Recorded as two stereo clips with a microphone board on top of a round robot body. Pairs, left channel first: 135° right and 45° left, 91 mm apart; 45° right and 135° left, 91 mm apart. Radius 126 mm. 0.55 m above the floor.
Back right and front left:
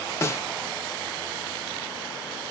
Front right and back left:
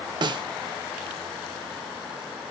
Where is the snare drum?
170° left, 0.7 m.